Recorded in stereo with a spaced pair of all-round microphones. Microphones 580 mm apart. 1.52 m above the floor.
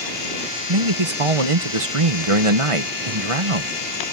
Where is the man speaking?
60° right (ahead or behind).